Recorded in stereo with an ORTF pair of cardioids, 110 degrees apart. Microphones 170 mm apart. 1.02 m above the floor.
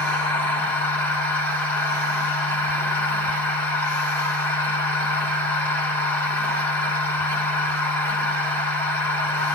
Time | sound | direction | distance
0.0 | a machine running | 10° left | 1.4 m